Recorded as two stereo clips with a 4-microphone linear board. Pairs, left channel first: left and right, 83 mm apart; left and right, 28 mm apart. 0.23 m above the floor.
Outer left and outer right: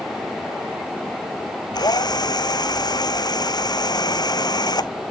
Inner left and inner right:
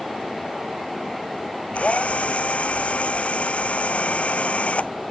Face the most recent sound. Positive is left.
turn(degrees=55)  # may be behind; listen again after turning